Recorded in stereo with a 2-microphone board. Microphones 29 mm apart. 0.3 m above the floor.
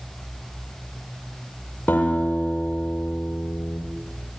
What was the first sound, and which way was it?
A guitar, 80° left.